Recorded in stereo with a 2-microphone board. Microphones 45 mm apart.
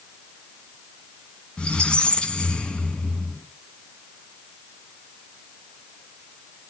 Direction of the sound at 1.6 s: 20° left (ahead or behind).